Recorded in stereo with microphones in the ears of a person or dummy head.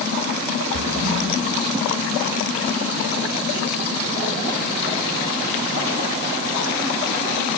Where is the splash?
55° right (ahead or behind), 3.5 m.